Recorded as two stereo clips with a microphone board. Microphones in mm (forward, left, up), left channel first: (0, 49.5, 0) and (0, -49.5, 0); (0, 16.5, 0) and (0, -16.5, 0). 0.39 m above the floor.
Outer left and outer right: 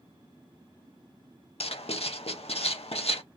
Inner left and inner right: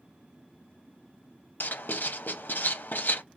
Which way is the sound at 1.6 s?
80° left.